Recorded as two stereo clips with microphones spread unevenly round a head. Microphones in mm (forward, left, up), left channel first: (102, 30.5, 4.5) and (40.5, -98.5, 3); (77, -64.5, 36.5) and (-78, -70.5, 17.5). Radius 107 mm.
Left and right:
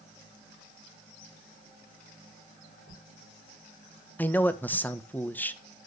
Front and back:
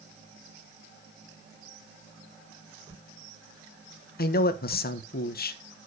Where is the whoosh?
125° right, 4.5 m.